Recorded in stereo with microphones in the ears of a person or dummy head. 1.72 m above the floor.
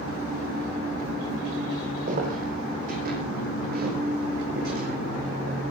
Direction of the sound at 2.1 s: 50° right (ahead or behind).